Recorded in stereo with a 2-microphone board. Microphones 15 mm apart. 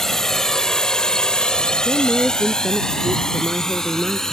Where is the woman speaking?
80° left.